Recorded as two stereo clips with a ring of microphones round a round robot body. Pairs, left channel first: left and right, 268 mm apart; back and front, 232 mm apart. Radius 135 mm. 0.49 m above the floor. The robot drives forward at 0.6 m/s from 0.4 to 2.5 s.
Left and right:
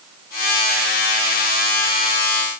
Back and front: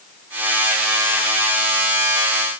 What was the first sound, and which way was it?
Only background noise.